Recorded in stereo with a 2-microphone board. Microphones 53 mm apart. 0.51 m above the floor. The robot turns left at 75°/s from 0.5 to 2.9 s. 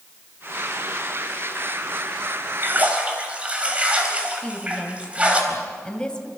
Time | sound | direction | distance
2.6 | a splash | 45° right (ahead or behind) | 3.5 m
4.4 | a woman speaking | 15° left (ahead or behind) | 2.5 m